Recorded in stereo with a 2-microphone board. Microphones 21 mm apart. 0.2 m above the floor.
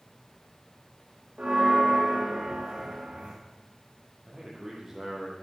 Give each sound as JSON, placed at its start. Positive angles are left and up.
{"t": 1.4, "sound": "a bell", "side_deg": -75, "distance_m": 6.0}
{"t": 4.3, "sound": "a man speaking", "side_deg": -25, "distance_m": 5.5}